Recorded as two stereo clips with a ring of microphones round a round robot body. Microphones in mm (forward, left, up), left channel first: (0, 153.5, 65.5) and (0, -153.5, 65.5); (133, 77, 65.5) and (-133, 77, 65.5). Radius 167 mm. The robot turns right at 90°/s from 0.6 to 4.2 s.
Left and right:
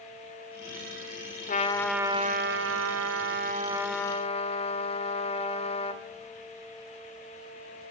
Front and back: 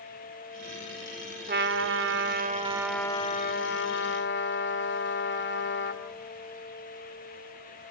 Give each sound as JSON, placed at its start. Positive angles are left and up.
{"t": 1.5, "sound": "a trumpet", "azimuth_deg": 140, "distance_m": 1.7}